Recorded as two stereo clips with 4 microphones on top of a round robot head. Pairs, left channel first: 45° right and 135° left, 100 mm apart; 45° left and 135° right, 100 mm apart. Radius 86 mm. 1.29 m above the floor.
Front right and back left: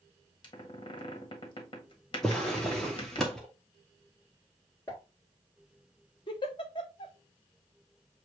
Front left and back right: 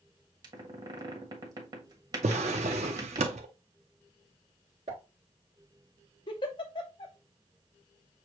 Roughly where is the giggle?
Ahead.